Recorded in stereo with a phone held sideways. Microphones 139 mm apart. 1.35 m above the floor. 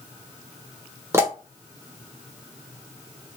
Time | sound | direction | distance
1.1 | a pop | 20° right (ahead or behind) | 1.0 m